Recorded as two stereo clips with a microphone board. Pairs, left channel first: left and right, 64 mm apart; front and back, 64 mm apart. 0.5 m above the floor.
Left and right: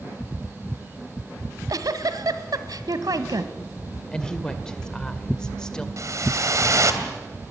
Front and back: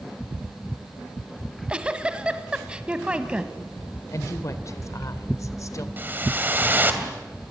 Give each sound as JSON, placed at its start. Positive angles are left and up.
{"t": 1.4, "sound": "a giggle", "azimuth_deg": -105, "distance_m": 1.5}
{"t": 4.1, "sound": "a woman speaking", "azimuth_deg": 15, "distance_m": 2.0}
{"t": 6.0, "sound": "a whoosh", "azimuth_deg": -120, "distance_m": 2.5}